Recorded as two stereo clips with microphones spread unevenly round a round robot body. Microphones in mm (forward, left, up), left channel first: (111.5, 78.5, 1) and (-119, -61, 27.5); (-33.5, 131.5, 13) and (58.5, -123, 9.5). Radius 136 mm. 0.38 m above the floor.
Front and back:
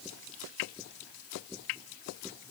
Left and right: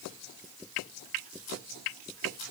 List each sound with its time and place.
Only background noise.